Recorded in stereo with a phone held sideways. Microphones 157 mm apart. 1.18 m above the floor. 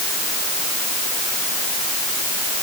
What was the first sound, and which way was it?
Only background noise.